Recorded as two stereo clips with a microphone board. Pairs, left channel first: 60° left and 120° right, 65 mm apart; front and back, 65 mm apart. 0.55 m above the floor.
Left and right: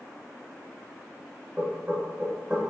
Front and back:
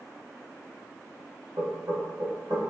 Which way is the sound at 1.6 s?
170° left.